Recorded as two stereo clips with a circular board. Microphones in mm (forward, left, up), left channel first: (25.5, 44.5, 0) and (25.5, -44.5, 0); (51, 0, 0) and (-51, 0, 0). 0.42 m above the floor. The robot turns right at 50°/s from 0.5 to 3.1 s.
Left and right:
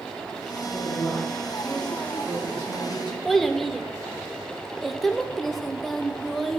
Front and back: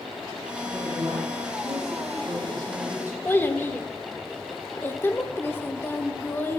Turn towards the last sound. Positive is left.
turn(degrees=5)